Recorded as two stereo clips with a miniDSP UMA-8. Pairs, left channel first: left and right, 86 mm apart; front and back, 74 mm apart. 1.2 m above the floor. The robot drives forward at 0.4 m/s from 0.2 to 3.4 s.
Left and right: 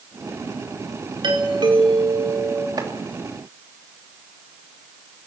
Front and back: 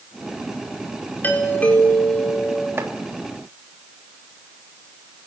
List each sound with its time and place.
1.2 s a doorbell: 65° right, 4.5 m; by 2.7 s 70° right, 4.5 m
2.8 s chopping: 125° right, 3 m